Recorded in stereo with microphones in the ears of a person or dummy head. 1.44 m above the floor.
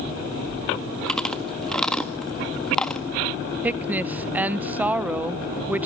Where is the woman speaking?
5° right (ahead or behind), 0.9 m.